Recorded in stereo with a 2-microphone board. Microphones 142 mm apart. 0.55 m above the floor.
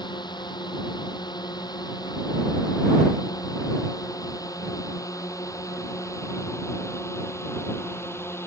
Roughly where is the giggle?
No giggle in this recording.